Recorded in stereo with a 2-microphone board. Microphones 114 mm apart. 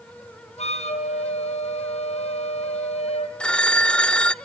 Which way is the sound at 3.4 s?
10° left (ahead or behind).